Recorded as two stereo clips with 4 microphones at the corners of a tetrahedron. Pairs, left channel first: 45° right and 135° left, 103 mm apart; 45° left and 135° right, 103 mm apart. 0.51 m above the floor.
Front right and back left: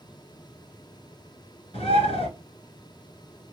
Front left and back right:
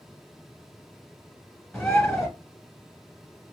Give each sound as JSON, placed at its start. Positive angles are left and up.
{"t": 1.7, "sound": "a bird", "azimuth_deg": -40, "distance_m": 1.9}